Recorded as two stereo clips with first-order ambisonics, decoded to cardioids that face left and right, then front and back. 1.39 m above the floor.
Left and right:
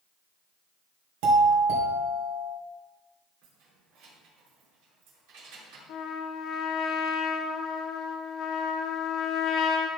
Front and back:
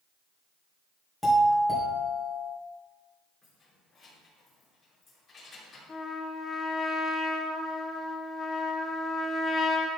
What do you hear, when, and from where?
1.2 s a doorbell: 90° right, 2.5 m
3.4 s keys jangling: 75° right, 3 m
5.9 s a trumpet: 70° left, 0.9 m